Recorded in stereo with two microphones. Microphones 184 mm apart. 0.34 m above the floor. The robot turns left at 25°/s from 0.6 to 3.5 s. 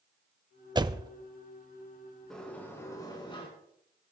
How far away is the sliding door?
About 3.5 m.